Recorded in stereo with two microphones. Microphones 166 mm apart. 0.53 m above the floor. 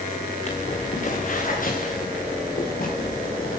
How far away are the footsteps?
About 3 m.